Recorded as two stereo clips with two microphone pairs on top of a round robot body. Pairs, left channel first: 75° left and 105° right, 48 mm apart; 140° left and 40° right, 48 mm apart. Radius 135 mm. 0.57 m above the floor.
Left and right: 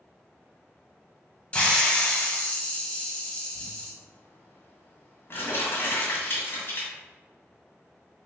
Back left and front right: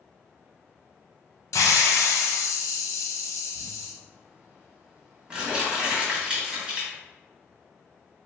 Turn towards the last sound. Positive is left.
turn(degrees=40)